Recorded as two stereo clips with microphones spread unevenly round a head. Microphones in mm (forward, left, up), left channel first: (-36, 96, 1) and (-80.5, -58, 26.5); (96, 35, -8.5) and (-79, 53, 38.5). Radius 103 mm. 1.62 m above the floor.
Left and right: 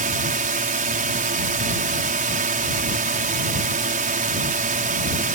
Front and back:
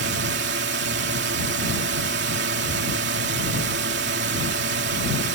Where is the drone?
145° right.